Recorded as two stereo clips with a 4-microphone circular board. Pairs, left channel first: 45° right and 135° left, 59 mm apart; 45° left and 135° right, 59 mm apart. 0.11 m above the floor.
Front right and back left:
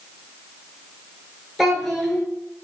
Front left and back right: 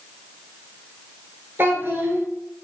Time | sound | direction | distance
1.6 | a child speaking | 130° right | 1.0 m